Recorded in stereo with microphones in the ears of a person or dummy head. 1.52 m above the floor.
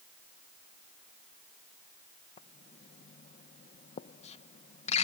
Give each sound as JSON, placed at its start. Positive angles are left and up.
{"t": 2.4, "sound": "writing", "side_deg": 35}